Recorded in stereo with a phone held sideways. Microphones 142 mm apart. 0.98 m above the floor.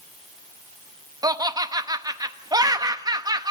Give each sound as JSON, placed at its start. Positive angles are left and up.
{"t": 1.2, "sound": "laughter", "side_deg": -25, "distance_m": 1.0}